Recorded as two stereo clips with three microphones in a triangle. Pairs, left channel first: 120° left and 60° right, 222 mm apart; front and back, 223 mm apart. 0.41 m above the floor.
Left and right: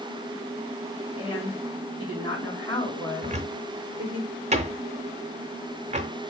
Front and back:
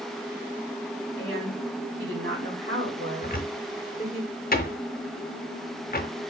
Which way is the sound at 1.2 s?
175° right.